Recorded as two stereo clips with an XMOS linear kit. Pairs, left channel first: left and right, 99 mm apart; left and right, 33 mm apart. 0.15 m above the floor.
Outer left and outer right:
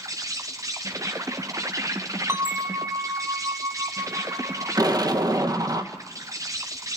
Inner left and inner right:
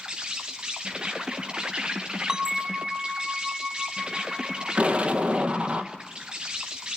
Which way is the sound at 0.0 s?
35° right (ahead or behind).